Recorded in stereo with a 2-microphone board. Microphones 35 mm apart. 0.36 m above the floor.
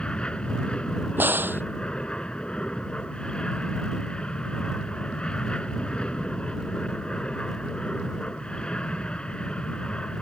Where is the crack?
70° right (ahead or behind).